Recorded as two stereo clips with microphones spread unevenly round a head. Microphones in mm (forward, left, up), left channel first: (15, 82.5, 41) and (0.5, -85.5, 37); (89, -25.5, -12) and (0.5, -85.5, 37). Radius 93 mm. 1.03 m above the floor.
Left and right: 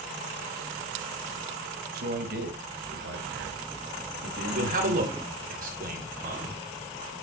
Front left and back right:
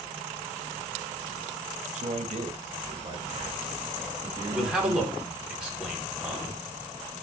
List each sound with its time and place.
1.9 s a man speaking: 120° right, 2.0 m; by 5.5 s 70° right, 3 m
4.5 s a man speaking: 60° right, 4 m